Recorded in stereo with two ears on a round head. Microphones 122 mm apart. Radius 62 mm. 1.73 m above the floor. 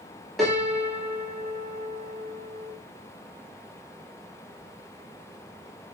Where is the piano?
Centre (ahead or behind), 0.9 m.